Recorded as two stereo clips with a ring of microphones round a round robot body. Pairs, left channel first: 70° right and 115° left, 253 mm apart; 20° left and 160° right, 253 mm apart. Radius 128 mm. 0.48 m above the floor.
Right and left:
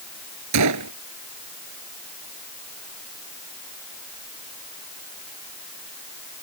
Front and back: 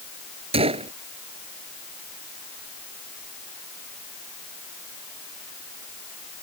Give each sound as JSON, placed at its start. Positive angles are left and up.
{"t": 0.5, "sound": "a gunshot", "azimuth_deg": 135}